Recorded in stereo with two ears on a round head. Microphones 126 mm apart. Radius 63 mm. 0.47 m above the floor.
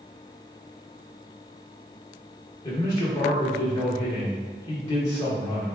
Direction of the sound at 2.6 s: 30° left (ahead or behind).